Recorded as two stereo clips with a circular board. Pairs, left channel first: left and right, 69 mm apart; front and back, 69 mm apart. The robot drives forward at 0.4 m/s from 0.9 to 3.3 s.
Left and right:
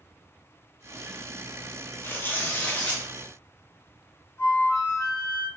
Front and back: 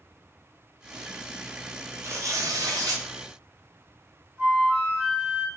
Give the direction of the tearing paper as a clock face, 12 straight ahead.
7 o'clock.